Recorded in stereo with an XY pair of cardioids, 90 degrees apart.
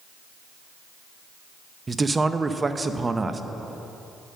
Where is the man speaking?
25° right, 0.7 m.